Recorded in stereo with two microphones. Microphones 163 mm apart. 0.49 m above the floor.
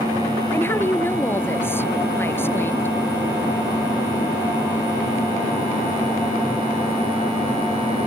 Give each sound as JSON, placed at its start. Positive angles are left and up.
{"t": 0.5, "sound": "a woman speaking", "side_deg": 15}